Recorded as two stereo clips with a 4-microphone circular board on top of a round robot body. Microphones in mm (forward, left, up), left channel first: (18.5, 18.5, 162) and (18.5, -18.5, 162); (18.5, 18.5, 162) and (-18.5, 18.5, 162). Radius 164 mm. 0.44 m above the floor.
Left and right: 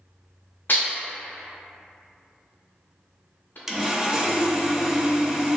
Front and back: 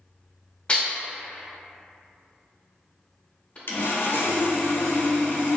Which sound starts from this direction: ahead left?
Dishes clattering, at 0.7 s.